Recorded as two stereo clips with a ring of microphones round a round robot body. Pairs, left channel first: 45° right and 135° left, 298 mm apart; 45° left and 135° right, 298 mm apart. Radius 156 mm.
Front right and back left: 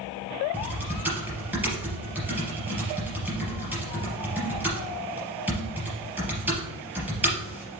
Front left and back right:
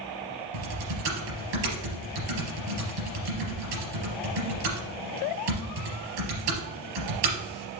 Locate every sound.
0.5 s typing on a keyboard: 140° right, 3.5 m